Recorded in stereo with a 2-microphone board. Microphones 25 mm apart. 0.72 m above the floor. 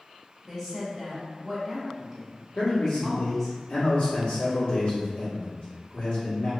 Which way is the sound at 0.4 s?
10° right (ahead or behind).